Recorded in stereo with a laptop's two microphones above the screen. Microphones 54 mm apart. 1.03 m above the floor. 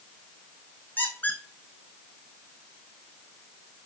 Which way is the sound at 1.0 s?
35° left (ahead or behind).